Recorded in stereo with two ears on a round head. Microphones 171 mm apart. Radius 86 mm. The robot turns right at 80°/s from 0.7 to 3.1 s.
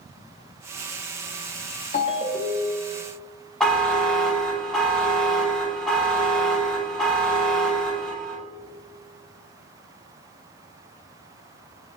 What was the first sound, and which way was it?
A ringtone, 135° left.